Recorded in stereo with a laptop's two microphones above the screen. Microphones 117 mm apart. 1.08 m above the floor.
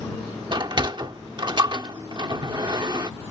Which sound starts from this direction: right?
A sliding door, at 0.5 s.